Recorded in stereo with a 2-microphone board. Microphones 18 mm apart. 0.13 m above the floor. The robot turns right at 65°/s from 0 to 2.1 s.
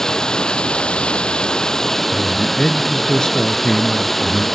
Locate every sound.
0.0 s running water: 25° left, 0.9 m; by 4.5 s 165° left, 0.9 m
2.1 s a man speaking: 50° left (ahead or behind), 1.7 m